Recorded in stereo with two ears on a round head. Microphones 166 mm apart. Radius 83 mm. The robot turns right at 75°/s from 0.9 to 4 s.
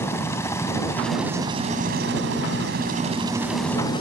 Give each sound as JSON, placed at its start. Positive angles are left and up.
{"t": 0.0, "sound": "a helicopter", "side_deg": 15}